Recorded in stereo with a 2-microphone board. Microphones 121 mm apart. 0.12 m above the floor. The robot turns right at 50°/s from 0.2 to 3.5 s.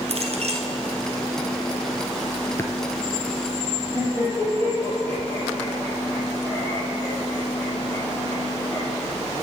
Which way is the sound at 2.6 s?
25° left (ahead or behind).